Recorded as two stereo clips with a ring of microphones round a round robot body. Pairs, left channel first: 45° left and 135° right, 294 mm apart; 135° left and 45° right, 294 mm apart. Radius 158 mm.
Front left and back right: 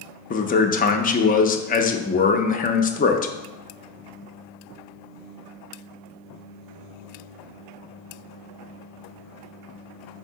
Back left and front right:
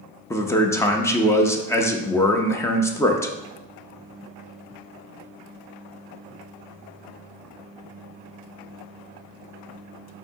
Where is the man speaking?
65° left, 0.5 m.